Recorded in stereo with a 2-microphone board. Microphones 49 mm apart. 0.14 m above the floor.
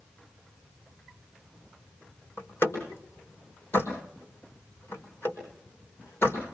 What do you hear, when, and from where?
2.4 s a door slam: 45° left (ahead or behind), 5 m